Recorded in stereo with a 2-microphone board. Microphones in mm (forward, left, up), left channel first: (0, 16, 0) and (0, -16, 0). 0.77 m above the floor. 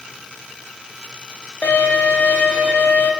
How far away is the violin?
About 0.5 m.